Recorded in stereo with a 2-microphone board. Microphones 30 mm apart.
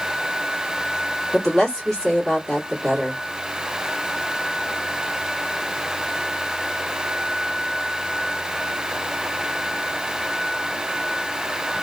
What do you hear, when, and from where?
1.3 s a woman speaking: 25° left (ahead or behind), 1.4 m